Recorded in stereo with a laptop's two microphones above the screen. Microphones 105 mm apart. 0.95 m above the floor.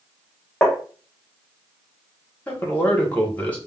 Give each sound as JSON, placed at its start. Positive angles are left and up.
{"t": 0.6, "sound": "tapping", "side_deg": 10, "distance_m": 0.5}
{"t": 2.5, "sound": "a man speaking", "side_deg": 15, "distance_m": 1.0}